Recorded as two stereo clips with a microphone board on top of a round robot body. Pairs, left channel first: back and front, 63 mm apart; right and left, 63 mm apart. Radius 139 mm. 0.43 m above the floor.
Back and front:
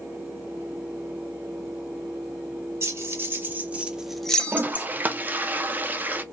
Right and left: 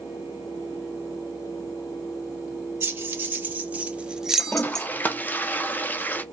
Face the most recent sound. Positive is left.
turn(degrees=-45)